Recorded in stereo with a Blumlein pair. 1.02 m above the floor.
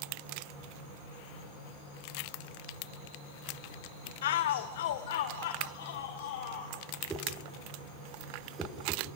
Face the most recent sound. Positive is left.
turn(degrees=-10)